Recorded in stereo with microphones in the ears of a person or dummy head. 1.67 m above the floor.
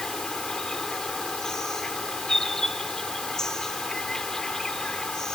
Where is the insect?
5° right (ahead or behind).